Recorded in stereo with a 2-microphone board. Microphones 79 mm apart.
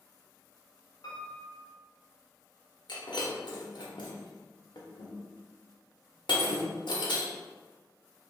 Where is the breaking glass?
85° left, 0.9 m.